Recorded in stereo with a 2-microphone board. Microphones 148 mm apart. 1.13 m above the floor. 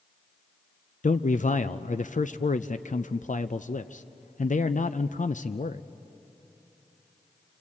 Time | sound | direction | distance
1.0 | a man speaking | 65° left (ahead or behind) | 0.5 m